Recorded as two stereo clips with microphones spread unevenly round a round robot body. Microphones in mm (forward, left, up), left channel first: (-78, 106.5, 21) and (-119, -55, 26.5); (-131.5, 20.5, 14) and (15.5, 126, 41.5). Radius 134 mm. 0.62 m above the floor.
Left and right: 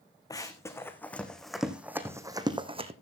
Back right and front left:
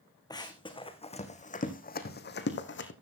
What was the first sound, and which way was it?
Running footsteps, 145° left.